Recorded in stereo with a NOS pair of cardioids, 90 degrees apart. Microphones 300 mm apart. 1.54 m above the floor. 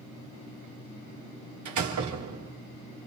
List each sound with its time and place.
1.6 s a door slam: 70° right, 3 m